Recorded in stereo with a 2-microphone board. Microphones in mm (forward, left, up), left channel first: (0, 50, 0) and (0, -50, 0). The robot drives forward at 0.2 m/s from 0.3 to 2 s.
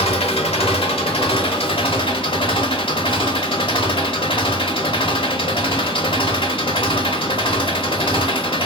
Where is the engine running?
80° left, 0.9 m; by 8.7 s 60° left (ahead or behind), 1.0 m.